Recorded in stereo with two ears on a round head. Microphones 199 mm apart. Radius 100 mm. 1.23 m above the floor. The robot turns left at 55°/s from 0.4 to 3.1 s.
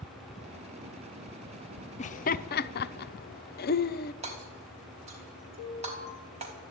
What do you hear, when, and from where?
2.0 s laughter: 30° left (ahead or behind), 0.7 m; by 4.1 s 45° left (ahead or behind), 0.7 m
4.2 s hammering: 30° right (ahead or behind), 4 m
5.6 s an alarm: 35° right (ahead or behind), 4 m